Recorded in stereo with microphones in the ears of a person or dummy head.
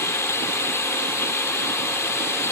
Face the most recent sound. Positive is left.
turn(degrees=15)  # may be behind; listen again after turning